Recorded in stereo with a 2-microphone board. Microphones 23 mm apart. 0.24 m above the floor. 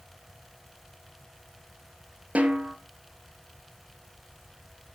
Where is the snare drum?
65° right (ahead or behind), 1.3 m.